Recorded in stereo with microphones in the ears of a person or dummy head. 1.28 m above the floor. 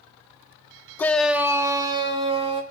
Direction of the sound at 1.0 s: 15° left (ahead or behind).